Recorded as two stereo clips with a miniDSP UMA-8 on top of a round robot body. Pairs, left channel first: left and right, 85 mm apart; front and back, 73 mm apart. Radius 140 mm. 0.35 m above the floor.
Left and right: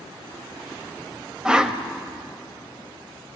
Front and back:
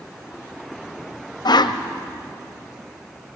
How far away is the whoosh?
About 1.3 m.